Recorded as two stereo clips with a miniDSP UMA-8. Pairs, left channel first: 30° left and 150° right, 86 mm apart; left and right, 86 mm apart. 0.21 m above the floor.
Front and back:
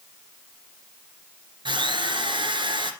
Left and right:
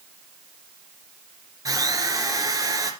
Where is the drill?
135° right, 2.5 m.